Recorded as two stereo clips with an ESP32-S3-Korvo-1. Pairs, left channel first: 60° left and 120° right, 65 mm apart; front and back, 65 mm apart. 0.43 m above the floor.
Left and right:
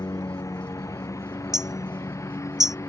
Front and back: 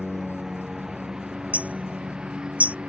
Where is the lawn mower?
95° left; by 2.9 s 105° left.